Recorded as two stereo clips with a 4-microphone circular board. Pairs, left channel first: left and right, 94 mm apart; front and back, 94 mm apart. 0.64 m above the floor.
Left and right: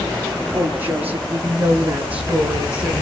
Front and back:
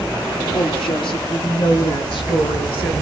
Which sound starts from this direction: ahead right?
A woman speaking, at 0.5 s.